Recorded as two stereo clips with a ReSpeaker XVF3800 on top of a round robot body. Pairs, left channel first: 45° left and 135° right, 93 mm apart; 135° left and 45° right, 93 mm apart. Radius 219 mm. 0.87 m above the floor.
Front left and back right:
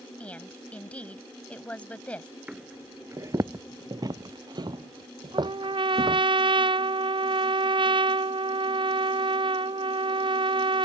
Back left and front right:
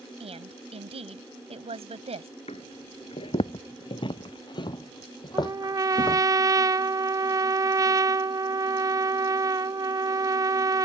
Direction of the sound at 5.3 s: 100° right.